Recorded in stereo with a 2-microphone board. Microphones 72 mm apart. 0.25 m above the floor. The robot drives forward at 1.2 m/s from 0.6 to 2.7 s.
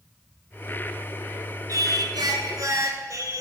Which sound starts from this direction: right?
Singing, at 1.7 s.